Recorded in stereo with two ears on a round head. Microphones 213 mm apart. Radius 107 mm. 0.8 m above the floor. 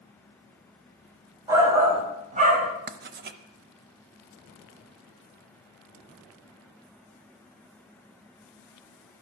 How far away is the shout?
About 3.5 m.